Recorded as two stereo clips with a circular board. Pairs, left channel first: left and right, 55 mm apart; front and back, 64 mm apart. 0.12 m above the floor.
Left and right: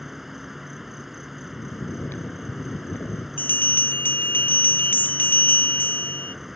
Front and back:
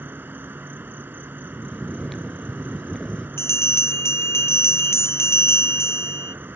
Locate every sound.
0.0 s an insect: 170° right
1.5 s snoring: 85° left
3.4 s a bell: 40° left